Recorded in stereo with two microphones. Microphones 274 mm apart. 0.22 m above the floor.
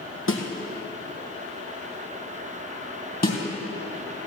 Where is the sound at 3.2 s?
35° left (ahead or behind), 3 m.